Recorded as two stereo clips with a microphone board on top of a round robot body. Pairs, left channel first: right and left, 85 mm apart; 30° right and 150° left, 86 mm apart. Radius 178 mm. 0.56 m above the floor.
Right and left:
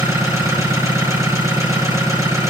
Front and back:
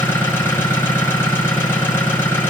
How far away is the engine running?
About 8 m.